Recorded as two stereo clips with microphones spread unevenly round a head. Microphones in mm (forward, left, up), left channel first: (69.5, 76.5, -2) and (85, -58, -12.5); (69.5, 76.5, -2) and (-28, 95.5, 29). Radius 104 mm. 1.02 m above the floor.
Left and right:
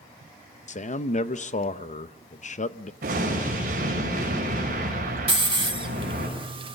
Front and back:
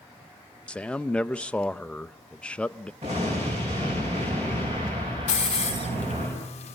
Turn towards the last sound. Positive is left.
turn(degrees=-35)